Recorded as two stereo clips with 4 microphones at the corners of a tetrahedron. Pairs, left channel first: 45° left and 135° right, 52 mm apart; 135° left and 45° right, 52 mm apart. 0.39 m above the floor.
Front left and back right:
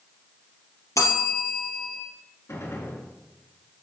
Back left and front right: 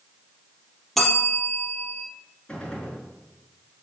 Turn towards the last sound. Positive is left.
turn(degrees=65)